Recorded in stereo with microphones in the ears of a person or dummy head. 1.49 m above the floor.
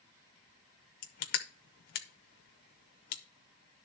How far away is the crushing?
About 0.9 m.